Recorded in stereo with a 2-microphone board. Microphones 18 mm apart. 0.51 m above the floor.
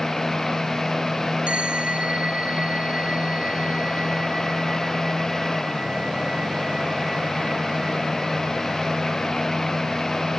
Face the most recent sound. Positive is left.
turn(degrees=-80)